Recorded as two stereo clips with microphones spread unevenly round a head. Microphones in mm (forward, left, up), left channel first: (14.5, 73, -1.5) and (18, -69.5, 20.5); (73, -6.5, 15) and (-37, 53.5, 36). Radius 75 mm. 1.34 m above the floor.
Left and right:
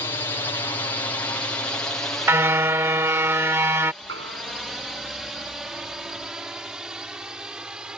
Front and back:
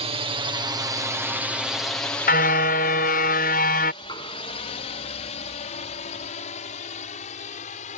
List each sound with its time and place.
0.0 s a drone: 145° left; by 8.0 s 5° right
2.3 s a car horn: 20° right
4.0 s knocking: 95° right